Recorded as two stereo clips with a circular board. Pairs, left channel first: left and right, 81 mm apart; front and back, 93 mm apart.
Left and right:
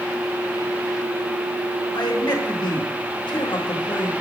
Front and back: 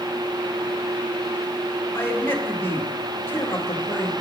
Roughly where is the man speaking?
Ahead left.